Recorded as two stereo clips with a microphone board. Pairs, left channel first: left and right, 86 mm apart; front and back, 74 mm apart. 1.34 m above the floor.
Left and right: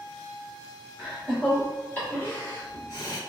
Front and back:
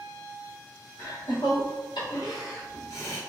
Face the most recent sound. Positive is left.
turn(degrees=55)